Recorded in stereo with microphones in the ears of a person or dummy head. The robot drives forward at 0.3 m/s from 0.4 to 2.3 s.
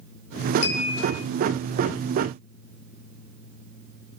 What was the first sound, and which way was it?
A clink, 45° left (ahead or behind).